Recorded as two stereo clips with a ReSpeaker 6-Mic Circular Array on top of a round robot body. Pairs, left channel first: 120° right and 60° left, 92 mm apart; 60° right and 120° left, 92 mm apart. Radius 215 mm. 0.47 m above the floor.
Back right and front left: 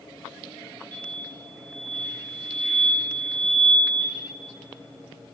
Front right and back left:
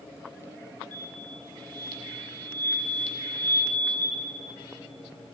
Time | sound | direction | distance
0.9 | an explosion | 15° left | 0.7 m